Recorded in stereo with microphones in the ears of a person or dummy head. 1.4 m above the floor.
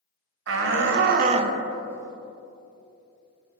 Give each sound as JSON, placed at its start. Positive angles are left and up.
{"t": 0.5, "sound": "a shout", "side_deg": -80, "distance_m": 1.0}